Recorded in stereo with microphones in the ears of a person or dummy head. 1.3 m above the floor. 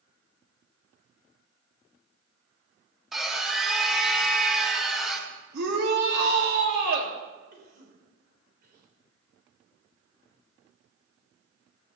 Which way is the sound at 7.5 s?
60° right (ahead or behind).